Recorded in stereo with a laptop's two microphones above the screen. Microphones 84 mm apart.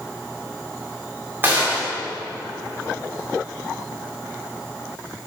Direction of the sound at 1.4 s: 25° right (ahead or behind).